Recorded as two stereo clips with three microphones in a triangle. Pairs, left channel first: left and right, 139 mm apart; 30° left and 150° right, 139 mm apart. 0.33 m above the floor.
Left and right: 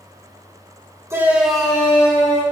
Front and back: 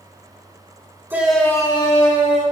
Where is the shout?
105° right, 1.1 m; by 2.4 s 25° left, 1.9 m.